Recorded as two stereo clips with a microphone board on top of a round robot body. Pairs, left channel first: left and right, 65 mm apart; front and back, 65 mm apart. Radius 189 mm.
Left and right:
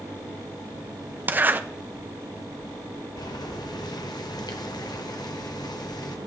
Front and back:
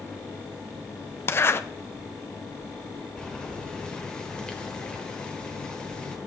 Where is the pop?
I don't hear a pop.